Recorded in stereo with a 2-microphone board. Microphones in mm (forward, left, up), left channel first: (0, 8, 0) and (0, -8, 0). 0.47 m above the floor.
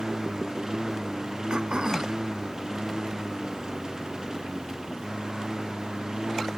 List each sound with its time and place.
0.0 s a lawn mower: 45° right (ahead or behind); by 6.6 s 50° right (ahead or behind)
1.5 s throat clearing: 70° right (ahead or behind)